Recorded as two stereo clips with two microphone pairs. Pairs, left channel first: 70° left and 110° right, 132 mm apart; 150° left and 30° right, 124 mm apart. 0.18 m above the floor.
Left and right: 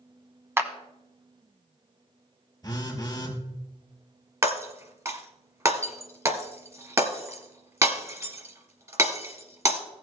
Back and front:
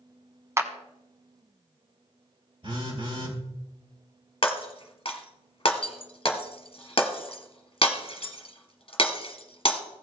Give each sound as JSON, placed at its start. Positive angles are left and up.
{"t": 0.6, "sound": "a clap", "azimuth_deg": -60, "distance_m": 0.9}
{"t": 2.6, "sound": "a phone buzzing", "azimuth_deg": 10, "distance_m": 3.5}
{"t": 4.4, "sound": "breaking glass", "azimuth_deg": -175, "distance_m": 1.3}